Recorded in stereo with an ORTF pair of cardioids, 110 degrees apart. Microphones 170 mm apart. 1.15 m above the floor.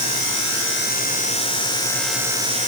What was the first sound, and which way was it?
Only background noise.